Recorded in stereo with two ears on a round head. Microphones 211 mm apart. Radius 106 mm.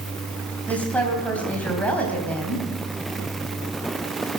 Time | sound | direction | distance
0.7 | a woman speaking | 5° left (ahead or behind) | 3.5 m